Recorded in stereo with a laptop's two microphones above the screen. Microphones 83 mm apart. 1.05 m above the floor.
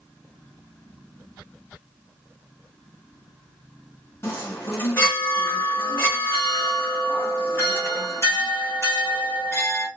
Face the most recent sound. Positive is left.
turn(degrees=30)  # may be behind; listen again after turning